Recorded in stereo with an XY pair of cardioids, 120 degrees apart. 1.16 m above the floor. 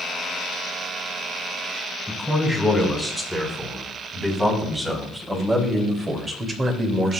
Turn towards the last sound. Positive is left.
turn(degrees=-45)